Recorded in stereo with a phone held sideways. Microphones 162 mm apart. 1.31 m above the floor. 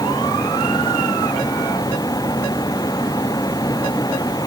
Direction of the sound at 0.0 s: 25° left (ahead or behind).